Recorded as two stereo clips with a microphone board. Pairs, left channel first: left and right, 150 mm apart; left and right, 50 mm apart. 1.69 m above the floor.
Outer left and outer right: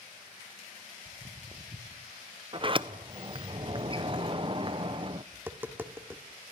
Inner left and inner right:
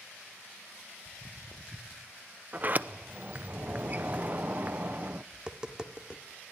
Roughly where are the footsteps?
Right.